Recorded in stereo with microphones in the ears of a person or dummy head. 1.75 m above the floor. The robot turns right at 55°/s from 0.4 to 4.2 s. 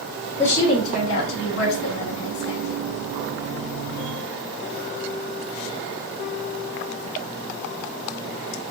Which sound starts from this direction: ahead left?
A woman speaking, at 0.4 s.